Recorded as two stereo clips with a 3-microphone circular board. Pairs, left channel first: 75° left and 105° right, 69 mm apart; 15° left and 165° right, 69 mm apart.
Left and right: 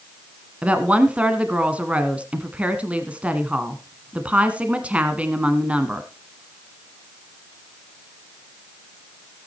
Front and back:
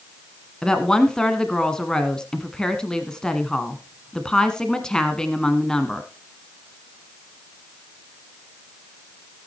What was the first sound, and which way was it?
A woman speaking, 55° right.